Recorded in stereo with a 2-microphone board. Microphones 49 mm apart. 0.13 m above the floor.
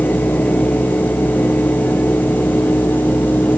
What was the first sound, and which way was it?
Only background noise.